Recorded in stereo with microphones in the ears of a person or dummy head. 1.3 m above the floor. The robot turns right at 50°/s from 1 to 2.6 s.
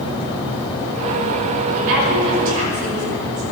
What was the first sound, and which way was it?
A woman speaking, 80° right.